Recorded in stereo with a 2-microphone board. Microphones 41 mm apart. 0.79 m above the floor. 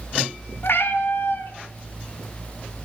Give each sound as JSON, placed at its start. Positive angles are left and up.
{"t": 0.6, "sound": "a cat meowing", "side_deg": 65, "distance_m": 0.6}